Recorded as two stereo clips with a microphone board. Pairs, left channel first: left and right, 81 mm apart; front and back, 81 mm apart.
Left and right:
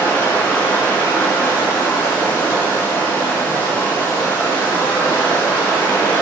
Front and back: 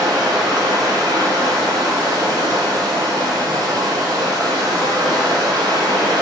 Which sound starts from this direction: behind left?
Running water, at 0.0 s.